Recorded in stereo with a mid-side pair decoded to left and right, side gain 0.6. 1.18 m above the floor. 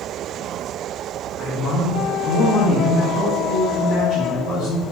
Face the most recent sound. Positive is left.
turn(degrees=50)